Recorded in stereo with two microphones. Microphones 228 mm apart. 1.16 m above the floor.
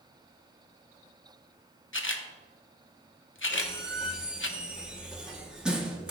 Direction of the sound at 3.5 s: 5° right (ahead or behind).